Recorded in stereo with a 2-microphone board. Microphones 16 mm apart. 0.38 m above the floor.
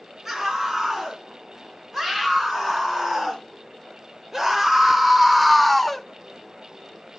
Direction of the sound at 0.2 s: 25° right (ahead or behind).